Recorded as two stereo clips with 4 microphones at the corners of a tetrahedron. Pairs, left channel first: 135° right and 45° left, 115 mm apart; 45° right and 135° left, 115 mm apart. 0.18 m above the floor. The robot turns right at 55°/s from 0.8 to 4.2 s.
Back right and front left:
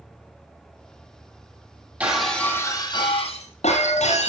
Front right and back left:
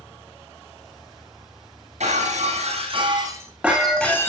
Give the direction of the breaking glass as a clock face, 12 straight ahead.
8 o'clock.